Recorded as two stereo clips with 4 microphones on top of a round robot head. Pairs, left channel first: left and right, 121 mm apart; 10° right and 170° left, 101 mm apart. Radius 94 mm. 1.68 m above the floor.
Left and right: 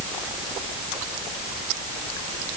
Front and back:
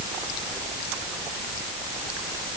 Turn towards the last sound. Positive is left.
No sound to turn to.